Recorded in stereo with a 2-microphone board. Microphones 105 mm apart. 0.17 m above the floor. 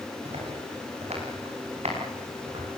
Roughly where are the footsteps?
Right.